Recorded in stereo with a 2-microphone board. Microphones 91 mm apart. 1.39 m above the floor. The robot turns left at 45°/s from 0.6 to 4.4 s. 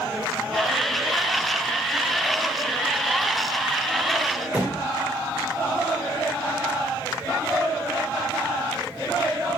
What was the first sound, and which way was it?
A thud, 20° right (ahead or behind).